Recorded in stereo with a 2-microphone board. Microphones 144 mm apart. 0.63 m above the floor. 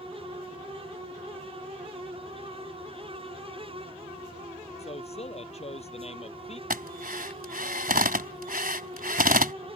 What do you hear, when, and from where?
4.8 s a man speaking: 45° left (ahead or behind)
6.7 s a drill: 85° right